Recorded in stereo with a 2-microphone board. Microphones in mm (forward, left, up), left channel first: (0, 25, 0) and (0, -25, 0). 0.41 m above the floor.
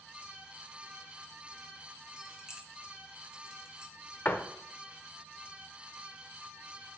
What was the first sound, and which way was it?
Keys jangling, 15° right (ahead or behind).